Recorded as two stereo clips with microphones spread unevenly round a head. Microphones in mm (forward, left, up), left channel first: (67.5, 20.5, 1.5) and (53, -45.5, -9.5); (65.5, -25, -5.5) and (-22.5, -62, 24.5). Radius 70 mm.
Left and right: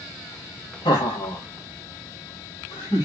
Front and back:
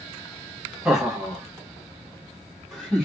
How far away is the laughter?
About 1.5 m.